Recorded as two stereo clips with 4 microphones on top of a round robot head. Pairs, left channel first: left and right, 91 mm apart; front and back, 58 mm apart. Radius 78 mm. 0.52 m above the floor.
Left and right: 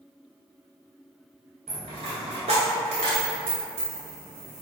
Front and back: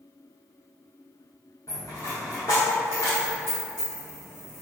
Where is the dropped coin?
65° right, 0.7 m.